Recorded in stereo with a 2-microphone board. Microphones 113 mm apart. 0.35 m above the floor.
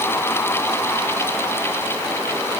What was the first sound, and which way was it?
Only background noise.